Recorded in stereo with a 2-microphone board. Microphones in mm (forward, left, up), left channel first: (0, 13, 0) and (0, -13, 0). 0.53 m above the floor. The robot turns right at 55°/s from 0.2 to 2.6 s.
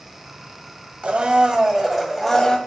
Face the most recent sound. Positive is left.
turn(degrees=30)